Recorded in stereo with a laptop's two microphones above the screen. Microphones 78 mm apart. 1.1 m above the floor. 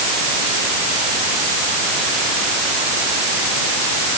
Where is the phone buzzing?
No phone buzzing in this recording.